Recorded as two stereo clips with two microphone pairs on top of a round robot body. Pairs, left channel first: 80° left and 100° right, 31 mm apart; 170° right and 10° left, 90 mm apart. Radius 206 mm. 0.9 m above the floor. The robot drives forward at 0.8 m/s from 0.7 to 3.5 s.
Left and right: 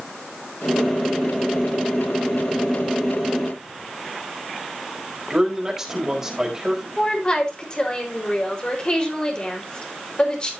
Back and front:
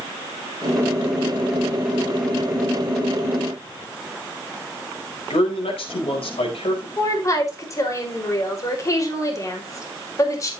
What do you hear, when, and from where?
5.3 s a man speaking: 175° right, 4.5 m
7.0 s a woman speaking: 135° left, 5 m